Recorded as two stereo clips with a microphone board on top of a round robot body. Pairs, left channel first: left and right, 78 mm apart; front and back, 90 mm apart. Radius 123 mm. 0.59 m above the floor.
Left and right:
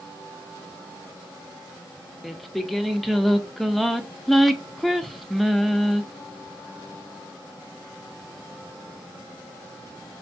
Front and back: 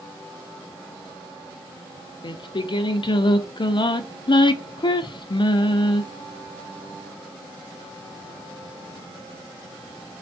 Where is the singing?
Straight ahead, 0.7 m.